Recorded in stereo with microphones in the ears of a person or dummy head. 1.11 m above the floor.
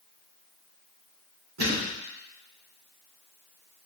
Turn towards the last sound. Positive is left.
turn(degrees=-50)  # may be behind; listen again after turning